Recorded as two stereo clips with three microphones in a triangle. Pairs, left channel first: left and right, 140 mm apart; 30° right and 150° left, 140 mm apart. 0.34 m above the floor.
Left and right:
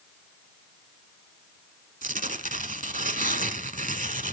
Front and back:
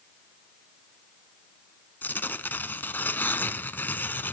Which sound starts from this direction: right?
Tearing paper, at 2.0 s.